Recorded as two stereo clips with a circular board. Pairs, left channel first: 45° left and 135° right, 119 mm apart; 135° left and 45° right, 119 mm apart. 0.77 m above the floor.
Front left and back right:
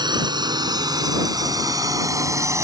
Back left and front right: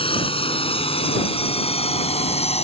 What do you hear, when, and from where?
0.0 s a drone: 175° left; by 2.6 s 160° left